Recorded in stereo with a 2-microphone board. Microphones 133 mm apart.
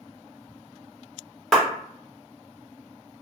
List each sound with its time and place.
1.5 s a clap: 5° left (ahead or behind), 1.0 m